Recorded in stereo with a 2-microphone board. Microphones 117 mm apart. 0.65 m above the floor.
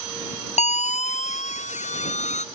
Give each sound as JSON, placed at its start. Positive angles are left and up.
{"t": 0.6, "sound": "a siren", "side_deg": 75}